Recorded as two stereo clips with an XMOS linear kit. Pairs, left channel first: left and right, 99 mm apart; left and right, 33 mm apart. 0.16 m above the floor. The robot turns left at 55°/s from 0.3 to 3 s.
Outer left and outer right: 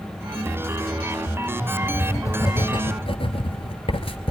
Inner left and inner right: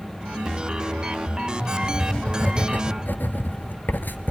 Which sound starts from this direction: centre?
Writing, at 1.8 s.